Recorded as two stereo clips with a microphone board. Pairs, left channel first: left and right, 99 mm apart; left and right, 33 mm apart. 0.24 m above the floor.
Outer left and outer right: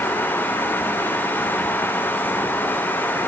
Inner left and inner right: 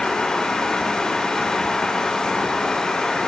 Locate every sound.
Only background noise.